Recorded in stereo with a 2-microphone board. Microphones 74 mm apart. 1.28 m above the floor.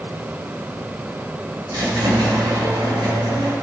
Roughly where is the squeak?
Right.